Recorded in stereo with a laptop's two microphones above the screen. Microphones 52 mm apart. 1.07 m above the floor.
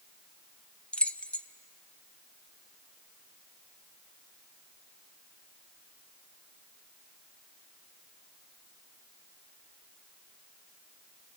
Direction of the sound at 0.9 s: 20° left (ahead or behind).